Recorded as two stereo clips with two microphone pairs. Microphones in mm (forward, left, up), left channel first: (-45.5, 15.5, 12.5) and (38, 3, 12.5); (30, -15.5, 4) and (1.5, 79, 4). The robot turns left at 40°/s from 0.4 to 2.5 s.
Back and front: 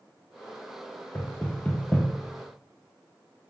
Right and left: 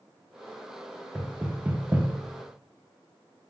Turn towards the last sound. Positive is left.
turn(degrees=100)